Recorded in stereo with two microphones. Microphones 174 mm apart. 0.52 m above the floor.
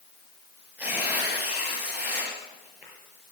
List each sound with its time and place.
0.8 s tearing paper: 10° right (ahead or behind), 6 m